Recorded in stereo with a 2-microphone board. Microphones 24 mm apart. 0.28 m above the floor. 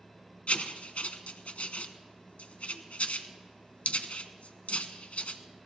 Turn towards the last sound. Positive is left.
turn(degrees=70)  # may be behind; listen again after turning